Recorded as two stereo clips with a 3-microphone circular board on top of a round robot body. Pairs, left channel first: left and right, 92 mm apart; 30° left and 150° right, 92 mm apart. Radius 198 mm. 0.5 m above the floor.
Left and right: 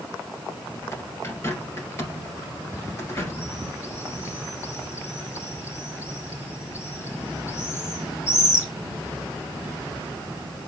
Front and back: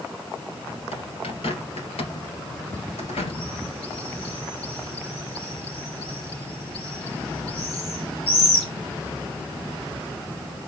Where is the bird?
25° left, 1.9 m.